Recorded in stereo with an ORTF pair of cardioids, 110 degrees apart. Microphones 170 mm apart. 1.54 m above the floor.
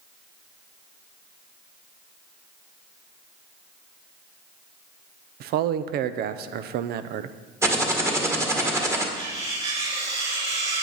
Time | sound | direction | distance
5.4 | a man speaking | 70° right | 0.6 m
7.6 | typing on a keyboard | 15° right | 1.6 m
9.2 | cutlery clinking | 35° right | 4 m